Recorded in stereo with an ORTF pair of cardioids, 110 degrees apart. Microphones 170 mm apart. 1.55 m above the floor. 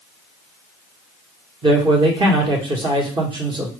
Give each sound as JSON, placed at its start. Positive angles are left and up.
{"t": 1.6, "sound": "a man speaking", "azimuth_deg": -30, "distance_m": 1.5}